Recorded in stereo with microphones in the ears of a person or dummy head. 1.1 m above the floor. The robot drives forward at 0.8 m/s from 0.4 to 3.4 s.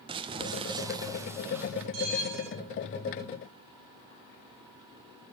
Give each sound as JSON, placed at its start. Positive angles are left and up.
{"t": 0.1, "sound": "crumpling", "side_deg": -30, "distance_m": 0.6}
{"t": 1.9, "sound": "a bell", "side_deg": -70, "distance_m": 4.0}